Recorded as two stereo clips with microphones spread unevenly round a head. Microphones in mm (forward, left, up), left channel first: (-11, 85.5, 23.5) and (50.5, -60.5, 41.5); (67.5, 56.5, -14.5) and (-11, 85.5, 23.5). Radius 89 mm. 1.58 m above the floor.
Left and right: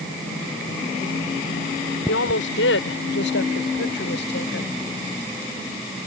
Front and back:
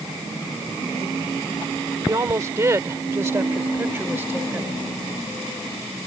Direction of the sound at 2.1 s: 115° left.